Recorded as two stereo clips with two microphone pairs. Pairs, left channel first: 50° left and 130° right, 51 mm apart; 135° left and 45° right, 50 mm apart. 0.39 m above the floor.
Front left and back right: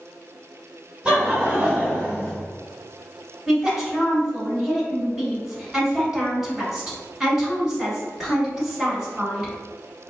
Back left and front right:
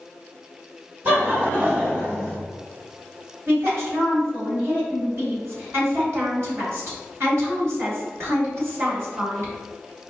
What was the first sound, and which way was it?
Laughter, 70° right.